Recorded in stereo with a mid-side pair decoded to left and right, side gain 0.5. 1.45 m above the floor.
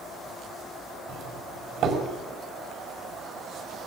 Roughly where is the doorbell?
Ahead right.